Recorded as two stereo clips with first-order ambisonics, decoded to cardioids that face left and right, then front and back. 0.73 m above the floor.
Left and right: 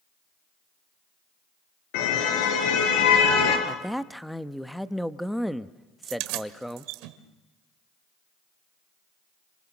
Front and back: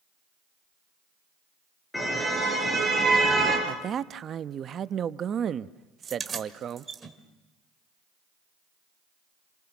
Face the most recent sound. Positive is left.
turn(degrees=-105)